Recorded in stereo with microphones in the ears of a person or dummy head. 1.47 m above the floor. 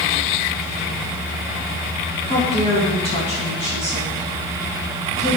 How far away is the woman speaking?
About 1.6 m.